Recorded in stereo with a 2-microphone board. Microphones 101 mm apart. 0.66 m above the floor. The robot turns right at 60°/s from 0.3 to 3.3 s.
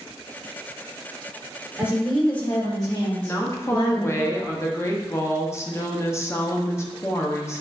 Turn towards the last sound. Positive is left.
turn(degrees=25)  # may be behind; listen again after turning